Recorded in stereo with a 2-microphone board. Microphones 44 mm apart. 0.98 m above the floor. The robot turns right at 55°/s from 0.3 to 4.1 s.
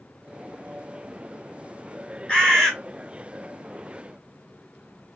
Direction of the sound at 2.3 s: 20° left (ahead or behind).